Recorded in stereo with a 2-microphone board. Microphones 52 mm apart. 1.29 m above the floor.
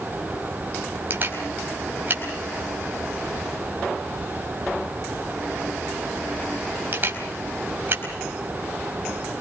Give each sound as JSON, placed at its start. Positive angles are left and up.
{"t": 1.1, "sound": "a camera shutter", "side_deg": -40, "distance_m": 4.5}